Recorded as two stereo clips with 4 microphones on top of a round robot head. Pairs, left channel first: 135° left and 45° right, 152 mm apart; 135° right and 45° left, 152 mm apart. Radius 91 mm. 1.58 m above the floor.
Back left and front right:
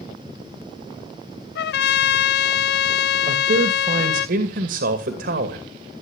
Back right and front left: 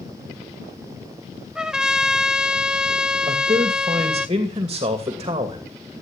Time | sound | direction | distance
1.6 | a trumpet | 130° left | 0.7 m
3.3 | a man speaking | 25° right | 2.5 m